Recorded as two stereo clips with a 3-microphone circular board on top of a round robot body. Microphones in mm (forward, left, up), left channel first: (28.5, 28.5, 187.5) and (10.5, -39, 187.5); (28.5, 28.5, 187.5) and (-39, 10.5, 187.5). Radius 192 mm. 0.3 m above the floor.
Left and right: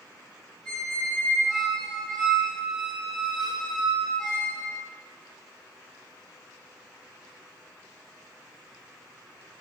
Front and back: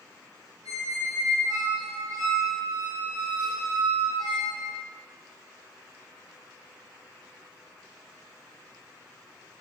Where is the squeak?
160° left, 0.8 m.